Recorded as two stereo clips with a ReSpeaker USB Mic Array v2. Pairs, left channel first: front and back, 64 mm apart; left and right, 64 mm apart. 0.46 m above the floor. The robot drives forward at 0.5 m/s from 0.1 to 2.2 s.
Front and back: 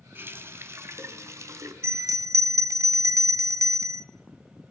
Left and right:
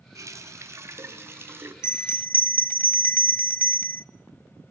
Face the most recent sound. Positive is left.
turn(degrees=145)